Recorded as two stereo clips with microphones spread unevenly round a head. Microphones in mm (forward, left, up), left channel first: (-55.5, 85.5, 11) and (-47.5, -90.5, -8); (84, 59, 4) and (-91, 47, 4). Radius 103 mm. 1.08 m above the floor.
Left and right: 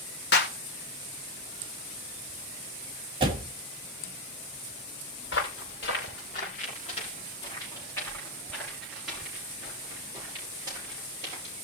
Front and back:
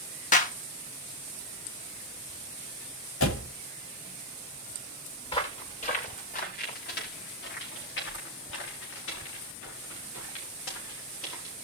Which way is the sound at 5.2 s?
60° left.